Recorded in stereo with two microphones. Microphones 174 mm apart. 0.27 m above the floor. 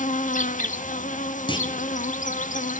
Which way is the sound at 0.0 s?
45° left (ahead or behind).